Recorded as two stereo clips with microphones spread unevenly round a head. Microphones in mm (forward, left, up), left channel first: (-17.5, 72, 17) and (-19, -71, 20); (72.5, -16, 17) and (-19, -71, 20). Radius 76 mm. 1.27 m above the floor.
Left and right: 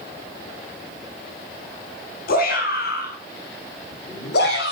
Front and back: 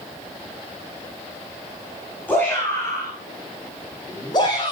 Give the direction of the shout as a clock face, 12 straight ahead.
8 o'clock.